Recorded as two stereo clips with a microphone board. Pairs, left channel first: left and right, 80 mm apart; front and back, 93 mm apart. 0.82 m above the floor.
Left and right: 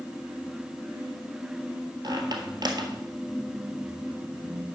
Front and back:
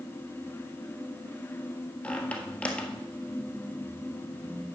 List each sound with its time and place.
2.0 s a squeak: 75° right, 1.5 m